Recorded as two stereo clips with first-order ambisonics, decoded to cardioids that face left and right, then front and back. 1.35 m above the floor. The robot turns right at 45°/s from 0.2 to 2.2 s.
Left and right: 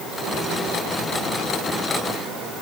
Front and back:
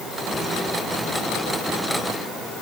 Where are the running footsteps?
I don't hear running footsteps.